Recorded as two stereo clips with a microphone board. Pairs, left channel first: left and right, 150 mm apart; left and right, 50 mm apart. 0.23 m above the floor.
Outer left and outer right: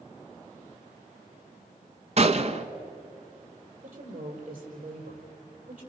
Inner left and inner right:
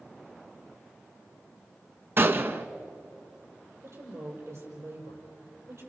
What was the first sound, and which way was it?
A gunshot, 50° right (ahead or behind).